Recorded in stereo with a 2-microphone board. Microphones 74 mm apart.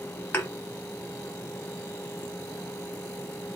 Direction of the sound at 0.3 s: 30° left (ahead or behind).